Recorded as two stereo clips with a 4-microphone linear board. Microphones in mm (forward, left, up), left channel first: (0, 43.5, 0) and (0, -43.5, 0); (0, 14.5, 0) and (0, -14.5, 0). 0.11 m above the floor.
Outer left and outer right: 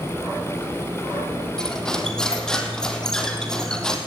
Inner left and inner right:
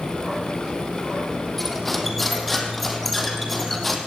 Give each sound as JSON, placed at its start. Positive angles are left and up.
{"t": 1.6, "sound": "cutlery clinking", "side_deg": 10, "distance_m": 3.0}